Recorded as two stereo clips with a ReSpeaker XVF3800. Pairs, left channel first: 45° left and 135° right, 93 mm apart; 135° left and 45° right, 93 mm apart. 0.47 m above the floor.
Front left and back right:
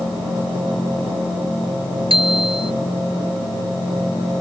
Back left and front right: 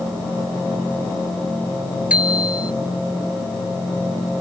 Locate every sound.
2.1 s a bicycle bell: 120° right